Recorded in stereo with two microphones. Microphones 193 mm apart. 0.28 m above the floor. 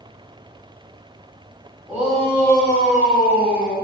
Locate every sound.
1.9 s a shout: 10° right (ahead or behind), 1.8 m; by 3.8 s 55° left (ahead or behind), 3 m